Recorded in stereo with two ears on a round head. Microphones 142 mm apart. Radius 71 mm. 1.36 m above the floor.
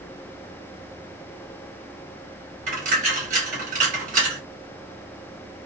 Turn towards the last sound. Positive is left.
turn(degrees=-50)  # may be behind; listen again after turning